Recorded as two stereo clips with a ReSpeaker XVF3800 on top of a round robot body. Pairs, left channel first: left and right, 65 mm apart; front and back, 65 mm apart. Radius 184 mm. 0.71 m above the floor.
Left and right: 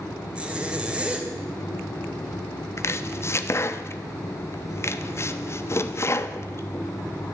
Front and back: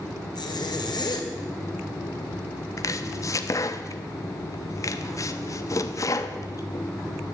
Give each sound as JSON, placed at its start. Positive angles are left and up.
{"t": 0.3, "sound": "a zipper", "azimuth_deg": -15, "distance_m": 2.0}
{"t": 2.8, "sound": "chopping", "azimuth_deg": 40, "distance_m": 1.0}